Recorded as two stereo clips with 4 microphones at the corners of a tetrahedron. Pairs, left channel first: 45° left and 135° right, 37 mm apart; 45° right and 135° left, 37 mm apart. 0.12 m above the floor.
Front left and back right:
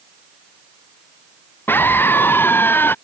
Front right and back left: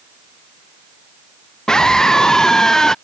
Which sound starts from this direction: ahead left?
A scream, at 1.7 s.